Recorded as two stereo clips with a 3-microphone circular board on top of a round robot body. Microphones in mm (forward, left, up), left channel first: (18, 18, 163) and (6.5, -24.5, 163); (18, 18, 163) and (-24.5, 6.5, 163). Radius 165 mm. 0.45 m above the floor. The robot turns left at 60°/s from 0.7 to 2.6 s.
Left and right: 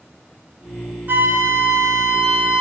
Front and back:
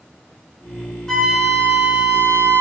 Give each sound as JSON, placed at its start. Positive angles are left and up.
{"t": 1.1, "sound": "a flute", "azimuth_deg": -65, "distance_m": 2.5}